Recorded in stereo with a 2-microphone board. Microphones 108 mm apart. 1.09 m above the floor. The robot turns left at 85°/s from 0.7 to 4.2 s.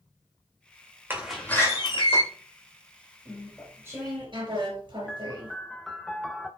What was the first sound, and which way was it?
A door slam, 160° right.